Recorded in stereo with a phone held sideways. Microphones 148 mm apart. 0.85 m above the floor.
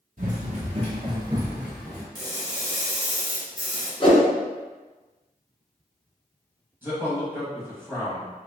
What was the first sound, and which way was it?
Running footsteps, 55° right (ahead or behind).